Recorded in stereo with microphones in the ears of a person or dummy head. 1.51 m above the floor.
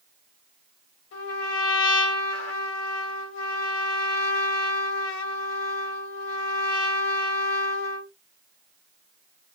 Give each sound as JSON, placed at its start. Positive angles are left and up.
{"t": 1.1, "sound": "a trumpet", "side_deg": 70, "distance_m": 2.5}